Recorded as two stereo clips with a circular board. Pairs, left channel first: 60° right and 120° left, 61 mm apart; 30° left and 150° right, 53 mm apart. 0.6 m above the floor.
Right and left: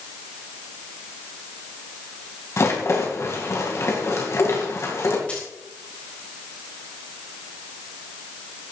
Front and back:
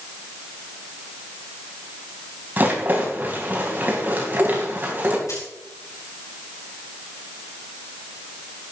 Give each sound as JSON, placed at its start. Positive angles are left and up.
{"t": 2.6, "sound": "a rattle", "azimuth_deg": -95, "distance_m": 3.5}
{"t": 5.3, "sound": "a dropped coin", "azimuth_deg": 10, "distance_m": 4.5}